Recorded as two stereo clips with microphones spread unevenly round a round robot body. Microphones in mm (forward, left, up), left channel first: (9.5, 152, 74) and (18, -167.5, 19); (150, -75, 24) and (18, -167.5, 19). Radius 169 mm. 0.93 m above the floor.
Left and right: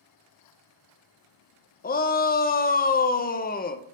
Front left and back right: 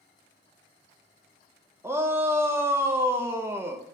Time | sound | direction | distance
1.8 | a shout | 150° left | 0.6 m